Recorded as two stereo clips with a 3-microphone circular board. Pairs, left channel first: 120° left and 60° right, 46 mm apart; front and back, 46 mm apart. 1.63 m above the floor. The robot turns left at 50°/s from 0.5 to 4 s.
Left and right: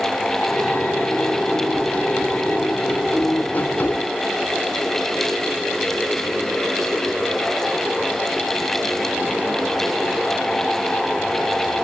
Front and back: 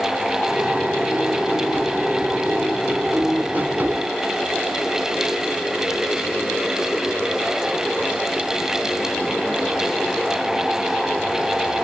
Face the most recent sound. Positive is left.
No sound to turn to.